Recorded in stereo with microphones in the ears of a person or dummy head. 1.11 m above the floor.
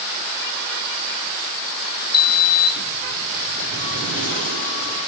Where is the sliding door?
45° left (ahead or behind), 3 m.